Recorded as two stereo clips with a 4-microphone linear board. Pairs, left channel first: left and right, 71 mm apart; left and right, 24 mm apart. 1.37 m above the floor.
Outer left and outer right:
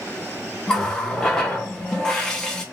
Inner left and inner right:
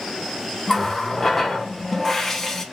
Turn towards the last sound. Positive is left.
turn(degrees=10)  # may be behind; listen again after turning